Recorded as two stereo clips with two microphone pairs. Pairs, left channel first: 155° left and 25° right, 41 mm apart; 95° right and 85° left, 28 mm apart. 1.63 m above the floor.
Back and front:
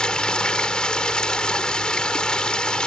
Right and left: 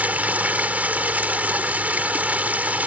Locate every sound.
0.0 s running water: 85° left